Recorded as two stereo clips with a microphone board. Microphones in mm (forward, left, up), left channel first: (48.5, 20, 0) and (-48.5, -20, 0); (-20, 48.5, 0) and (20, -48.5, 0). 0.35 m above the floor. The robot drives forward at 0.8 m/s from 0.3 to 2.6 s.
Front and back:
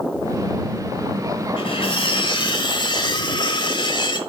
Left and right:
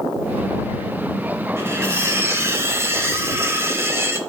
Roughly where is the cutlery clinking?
Ahead.